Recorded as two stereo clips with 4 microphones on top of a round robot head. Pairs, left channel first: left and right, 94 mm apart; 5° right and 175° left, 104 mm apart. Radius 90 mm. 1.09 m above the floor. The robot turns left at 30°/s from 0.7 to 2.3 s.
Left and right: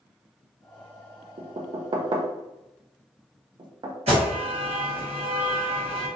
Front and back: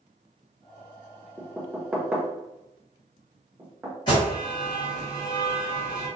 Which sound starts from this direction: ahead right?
An alarm, at 4.1 s.